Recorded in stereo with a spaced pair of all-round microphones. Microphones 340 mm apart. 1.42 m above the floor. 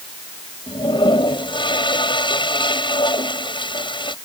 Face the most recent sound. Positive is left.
turn(degrees=15)  # may be behind; listen again after turning